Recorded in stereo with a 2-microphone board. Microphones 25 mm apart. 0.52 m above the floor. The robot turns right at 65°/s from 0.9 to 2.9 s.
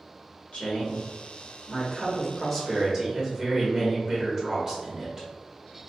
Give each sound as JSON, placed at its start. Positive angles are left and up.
{"t": 0.5, "sound": "a woman speaking", "azimuth_deg": 75, "distance_m": 1.7}